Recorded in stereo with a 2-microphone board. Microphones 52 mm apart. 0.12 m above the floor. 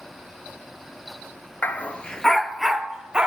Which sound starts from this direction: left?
A dog barking, at 1.6 s.